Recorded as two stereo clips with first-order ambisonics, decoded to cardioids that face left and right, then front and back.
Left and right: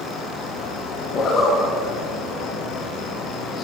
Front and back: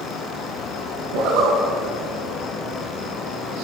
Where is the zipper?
155° left, 5.5 m.